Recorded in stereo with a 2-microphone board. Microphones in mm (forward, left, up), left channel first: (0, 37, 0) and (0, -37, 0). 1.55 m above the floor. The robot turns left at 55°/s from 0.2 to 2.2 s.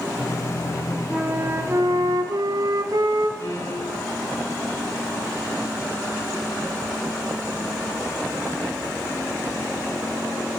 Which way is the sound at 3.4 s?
60° left (ahead or behind).